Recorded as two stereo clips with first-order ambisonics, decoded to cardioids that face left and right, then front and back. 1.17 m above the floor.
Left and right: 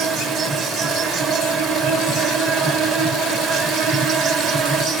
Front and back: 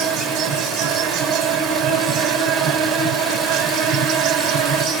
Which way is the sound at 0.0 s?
140° right.